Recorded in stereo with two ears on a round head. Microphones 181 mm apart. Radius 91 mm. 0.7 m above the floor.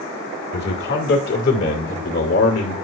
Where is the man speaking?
55° left (ahead or behind), 1.8 m; by 2.7 s 70° left (ahead or behind), 3 m.